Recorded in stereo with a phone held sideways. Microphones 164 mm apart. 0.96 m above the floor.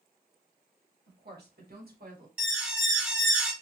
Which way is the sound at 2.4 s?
10° right (ahead or behind).